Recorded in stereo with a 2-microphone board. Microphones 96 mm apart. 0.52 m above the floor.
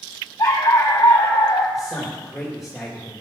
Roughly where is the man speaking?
Centre.